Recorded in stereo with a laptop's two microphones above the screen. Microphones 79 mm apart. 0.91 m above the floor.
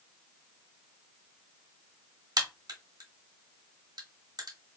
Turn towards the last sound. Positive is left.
turn(degrees=-55)  # may be behind; listen again after turning